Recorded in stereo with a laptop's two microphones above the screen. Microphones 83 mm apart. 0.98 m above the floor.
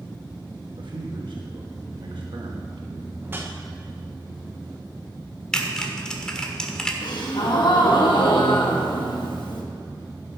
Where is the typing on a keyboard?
10° left (ahead or behind), 1.5 m.